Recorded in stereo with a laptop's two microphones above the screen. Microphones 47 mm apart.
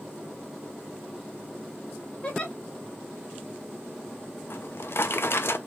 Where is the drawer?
60° left (ahead or behind), 0.5 m.